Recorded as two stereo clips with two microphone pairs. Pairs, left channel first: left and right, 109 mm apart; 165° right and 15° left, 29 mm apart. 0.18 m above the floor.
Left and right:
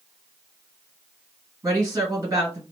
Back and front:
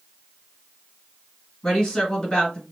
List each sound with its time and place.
1.6 s a woman speaking: 125° right, 1.9 m